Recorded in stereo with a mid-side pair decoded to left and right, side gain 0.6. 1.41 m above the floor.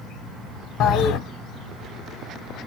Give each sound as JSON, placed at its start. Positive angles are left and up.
{"t": 0.8, "sound": "a toilet flushing", "azimuth_deg": 60, "distance_m": 0.8}